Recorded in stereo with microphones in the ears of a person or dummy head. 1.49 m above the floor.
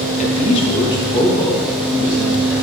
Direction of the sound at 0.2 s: 40° left (ahead or behind).